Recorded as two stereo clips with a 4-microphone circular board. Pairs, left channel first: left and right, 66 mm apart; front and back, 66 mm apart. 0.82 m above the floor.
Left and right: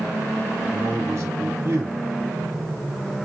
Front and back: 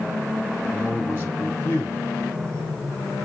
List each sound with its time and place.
0.7 s a man speaking: 55° right, 2.5 m